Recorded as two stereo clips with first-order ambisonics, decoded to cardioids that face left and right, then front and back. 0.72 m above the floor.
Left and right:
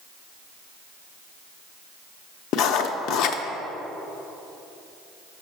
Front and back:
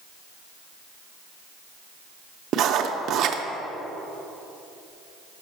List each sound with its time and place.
2.5 s writing: 130° left, 0.5 m